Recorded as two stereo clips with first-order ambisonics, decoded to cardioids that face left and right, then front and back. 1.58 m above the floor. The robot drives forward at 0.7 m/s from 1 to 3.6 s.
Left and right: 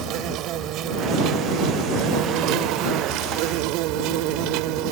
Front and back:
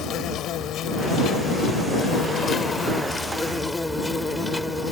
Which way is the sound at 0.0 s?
50° right.